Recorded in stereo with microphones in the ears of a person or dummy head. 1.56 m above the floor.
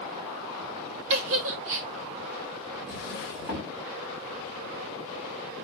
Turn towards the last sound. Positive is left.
turn(degrees=-5)  # may be behind; listen again after turning